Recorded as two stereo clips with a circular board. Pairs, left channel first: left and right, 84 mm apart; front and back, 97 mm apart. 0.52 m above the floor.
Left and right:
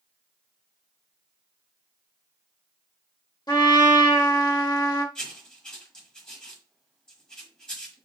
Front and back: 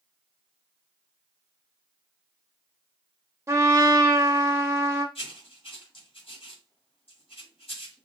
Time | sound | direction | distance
3.5 | a trumpet | 120° left | 0.9 m
5.2 | writing | 10° left | 1.1 m